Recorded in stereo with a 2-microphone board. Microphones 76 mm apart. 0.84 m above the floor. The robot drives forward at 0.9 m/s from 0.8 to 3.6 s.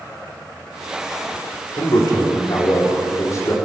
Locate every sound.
1.8 s a man speaking: 65° left (ahead or behind), 2 m; by 3.5 s 40° left (ahead or behind), 3 m